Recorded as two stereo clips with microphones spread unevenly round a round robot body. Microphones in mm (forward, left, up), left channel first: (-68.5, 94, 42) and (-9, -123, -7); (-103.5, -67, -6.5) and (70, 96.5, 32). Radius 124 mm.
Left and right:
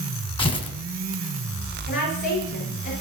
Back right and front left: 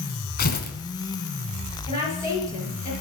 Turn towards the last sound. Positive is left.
turn(degrees=155)